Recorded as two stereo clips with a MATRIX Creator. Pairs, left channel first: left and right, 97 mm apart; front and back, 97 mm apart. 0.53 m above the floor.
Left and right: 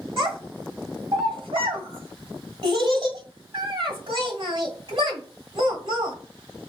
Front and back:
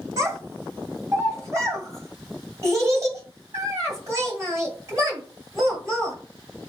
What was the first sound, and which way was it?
A child speaking, 125° right.